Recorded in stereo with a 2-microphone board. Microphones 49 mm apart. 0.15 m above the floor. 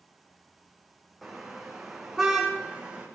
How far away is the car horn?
About 4.5 m.